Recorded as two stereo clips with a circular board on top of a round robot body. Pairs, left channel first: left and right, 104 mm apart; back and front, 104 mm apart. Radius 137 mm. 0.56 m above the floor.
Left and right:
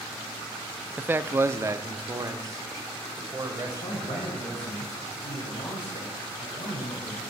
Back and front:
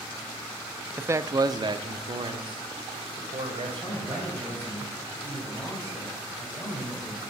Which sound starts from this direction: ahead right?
A man speaking, at 1.0 s.